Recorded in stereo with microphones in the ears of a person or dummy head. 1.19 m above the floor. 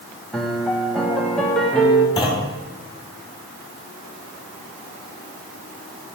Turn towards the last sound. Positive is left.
turn(degrees=20)  # may be behind; listen again after turning